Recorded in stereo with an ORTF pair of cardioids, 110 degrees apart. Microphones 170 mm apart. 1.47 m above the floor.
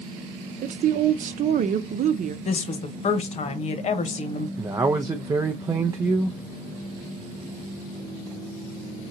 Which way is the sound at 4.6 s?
20° right.